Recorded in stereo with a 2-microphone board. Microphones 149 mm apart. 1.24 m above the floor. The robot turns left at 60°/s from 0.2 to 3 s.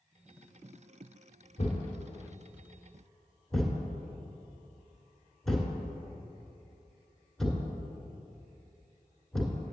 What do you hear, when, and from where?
1.6 s a thud: 50° left (ahead or behind), 1.7 m; by 9.6 s centre (ahead or behind), 1.7 m